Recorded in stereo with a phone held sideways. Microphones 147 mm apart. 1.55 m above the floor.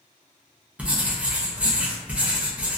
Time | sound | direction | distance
0.8 | writing | 10° right (ahead or behind) | 0.6 m